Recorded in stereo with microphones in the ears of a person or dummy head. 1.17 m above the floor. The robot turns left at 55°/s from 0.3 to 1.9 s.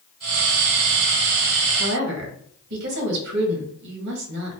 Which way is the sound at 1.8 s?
55° right (ahead or behind).